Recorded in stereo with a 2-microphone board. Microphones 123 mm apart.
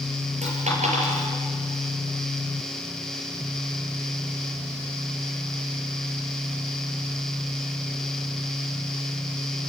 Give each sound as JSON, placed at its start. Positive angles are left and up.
{"t": 0.4, "sound": "a dropped coin", "side_deg": -70, "distance_m": 5.0}